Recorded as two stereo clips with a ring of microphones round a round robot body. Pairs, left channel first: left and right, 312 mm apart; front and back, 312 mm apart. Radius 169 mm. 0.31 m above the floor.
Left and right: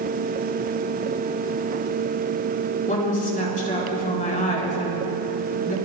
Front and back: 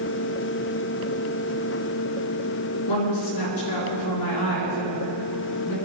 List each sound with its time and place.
2.9 s a woman speaking: 25° left, 3.5 m